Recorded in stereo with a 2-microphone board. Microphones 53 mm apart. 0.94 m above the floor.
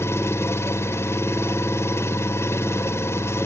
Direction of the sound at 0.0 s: 55° left (ahead or behind).